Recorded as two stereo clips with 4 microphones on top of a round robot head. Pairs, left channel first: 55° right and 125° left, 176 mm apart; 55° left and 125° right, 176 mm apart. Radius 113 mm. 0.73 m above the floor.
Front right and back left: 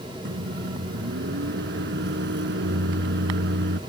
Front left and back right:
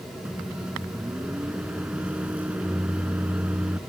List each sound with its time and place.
0.2 s a microwave: 150° left